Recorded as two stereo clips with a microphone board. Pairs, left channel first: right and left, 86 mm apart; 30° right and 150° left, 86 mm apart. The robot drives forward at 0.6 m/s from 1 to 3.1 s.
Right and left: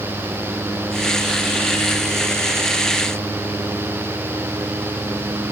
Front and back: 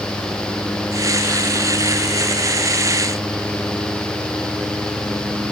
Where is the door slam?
I don't hear a door slam.